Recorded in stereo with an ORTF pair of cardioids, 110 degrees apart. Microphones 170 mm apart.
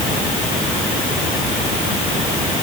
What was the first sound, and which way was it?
Only background noise.